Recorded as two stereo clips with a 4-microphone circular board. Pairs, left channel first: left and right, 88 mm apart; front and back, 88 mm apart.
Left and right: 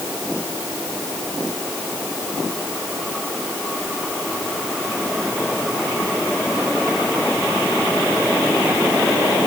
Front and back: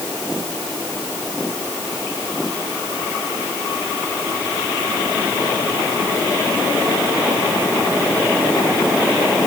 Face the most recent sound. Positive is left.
No sound to turn to.